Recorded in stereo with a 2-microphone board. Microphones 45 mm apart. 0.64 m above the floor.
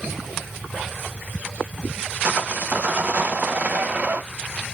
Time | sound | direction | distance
2.2 | sawing | 40° right (ahead or behind) | 0.6 m